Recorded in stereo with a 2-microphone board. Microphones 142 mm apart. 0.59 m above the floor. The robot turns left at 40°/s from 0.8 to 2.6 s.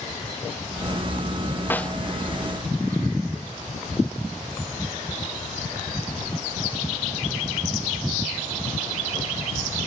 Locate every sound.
1.7 s a snare drum: 15° left (ahead or behind); by 2.0 s 5° left (ahead or behind)